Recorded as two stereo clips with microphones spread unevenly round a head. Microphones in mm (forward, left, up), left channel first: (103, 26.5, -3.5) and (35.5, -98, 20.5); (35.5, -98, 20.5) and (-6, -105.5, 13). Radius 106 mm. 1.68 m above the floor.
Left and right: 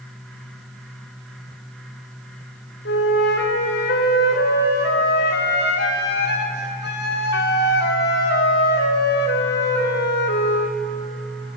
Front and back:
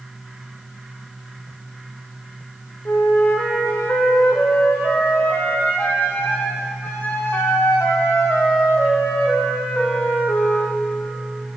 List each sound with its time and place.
2.9 s a flute: 85° left, 0.6 m